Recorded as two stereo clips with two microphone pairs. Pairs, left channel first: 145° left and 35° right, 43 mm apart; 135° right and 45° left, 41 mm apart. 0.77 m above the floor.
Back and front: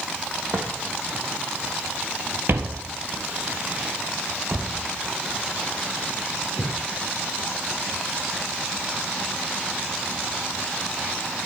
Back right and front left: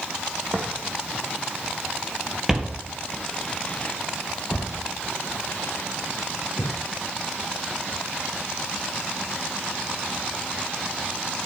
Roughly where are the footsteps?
Ahead.